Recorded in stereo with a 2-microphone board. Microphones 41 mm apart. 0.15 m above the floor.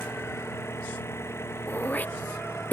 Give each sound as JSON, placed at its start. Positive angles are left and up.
{"t": 0.0, "sound": "an engine running", "side_deg": 85}
{"t": 1.7, "sound": "throat clearing", "side_deg": 40}